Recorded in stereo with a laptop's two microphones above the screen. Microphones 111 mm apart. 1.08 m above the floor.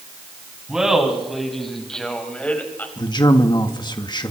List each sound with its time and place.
0.7 s laughter: 5° right (ahead or behind), 8 m; by 2.9 s 15° left (ahead or behind), 5.5 m
3.0 s a man speaking: 40° left (ahead or behind), 1.8 m